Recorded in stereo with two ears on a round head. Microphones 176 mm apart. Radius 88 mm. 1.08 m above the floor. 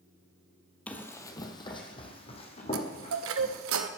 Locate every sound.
0.9 s running footsteps: 5° left (ahead or behind), 1.2 m; by 3.7 s 35° left (ahead or behind), 3.5 m
2.7 s a chime: 75° right (ahead or behind), 0.8 m